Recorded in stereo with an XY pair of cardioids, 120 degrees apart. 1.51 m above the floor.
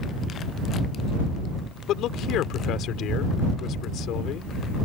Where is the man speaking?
70° left.